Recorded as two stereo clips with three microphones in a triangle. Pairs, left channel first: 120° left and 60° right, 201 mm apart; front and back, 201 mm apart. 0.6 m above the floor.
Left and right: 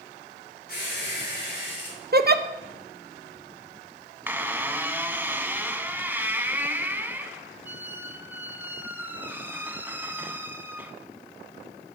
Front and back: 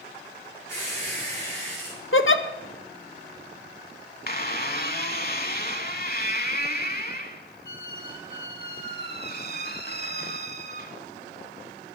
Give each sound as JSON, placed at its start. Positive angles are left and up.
{"t": 0.7, "sound": "a squeak", "azimuth_deg": 80, "distance_m": 5.0}
{"t": 2.1, "sound": "a giggle", "azimuth_deg": -20, "distance_m": 0.5}
{"t": 4.3, "sound": "a squeak", "azimuth_deg": 15, "distance_m": 0.7}